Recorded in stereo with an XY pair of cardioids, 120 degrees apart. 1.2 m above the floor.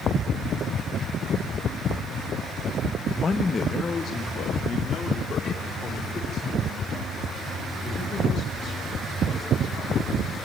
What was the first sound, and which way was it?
A man speaking, 25° left.